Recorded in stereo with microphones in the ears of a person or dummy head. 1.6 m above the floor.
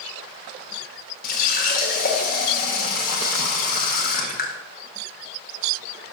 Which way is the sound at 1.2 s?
55° left (ahead or behind).